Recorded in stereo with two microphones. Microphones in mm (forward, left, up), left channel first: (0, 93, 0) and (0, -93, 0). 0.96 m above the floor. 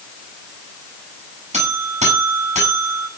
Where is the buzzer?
40° right (ahead or behind), 9 m.